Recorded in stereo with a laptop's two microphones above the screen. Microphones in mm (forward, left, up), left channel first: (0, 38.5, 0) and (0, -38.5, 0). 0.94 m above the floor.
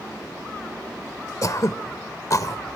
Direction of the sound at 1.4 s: 50° left (ahead or behind).